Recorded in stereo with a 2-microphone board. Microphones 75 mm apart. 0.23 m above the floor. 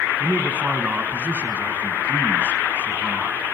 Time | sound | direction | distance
0.2 | a man speaking | 15° right (ahead or behind) | 2.5 m